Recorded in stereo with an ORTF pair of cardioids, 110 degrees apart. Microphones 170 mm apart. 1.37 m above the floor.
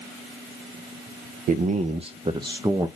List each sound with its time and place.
1.5 s a man speaking: 60° right, 0.7 m; by 2.9 s 15° right, 1.1 m